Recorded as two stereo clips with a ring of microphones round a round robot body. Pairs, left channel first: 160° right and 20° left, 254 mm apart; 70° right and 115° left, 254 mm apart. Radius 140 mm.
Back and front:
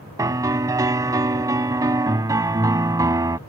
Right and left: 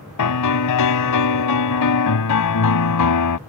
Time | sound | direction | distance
0.2 | a piano | 55° right | ?